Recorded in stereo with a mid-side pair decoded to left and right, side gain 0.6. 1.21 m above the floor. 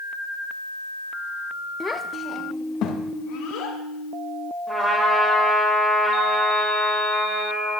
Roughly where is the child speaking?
Ahead.